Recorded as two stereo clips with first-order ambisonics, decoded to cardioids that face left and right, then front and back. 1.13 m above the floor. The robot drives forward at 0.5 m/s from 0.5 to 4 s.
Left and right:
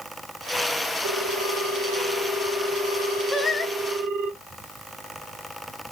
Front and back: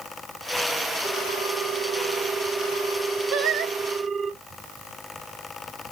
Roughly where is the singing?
Behind.